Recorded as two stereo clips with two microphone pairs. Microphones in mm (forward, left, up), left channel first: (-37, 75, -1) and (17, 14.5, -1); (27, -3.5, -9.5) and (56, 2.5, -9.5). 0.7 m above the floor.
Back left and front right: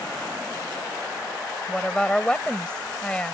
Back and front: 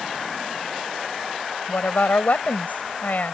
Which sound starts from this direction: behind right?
A woman speaking, at 1.7 s.